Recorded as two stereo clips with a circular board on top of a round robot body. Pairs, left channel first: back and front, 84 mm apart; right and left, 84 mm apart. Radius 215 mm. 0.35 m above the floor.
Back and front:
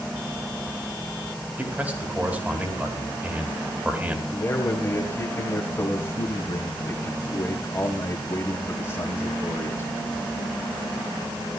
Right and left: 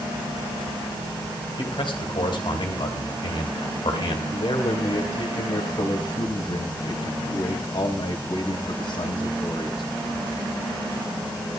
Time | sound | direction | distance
1.6 | a man speaking | 70° right | 4 m
4.3 | a man speaking | 120° right | 3 m